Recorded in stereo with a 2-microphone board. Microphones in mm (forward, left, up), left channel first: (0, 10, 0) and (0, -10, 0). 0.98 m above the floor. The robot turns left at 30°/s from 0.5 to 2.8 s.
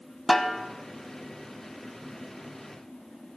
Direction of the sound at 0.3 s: 10° left (ahead or behind).